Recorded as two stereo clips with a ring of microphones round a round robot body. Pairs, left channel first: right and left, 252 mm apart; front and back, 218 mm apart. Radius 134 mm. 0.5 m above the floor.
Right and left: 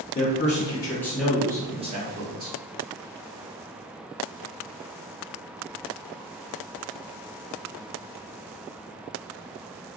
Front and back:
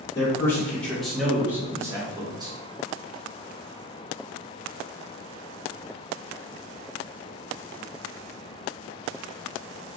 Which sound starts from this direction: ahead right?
A man speaking, at 0.1 s.